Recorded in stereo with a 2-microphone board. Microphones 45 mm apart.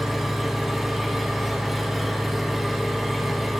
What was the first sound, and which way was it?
An engine running, centre (ahead or behind).